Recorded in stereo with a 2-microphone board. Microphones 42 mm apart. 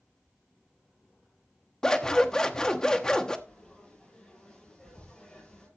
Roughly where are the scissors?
Centre.